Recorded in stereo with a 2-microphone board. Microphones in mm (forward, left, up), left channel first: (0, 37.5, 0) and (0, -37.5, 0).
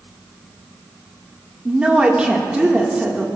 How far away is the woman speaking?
About 1.6 m.